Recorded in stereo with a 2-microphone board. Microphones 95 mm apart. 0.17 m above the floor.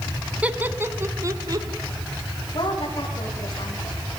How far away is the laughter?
About 1.4 m.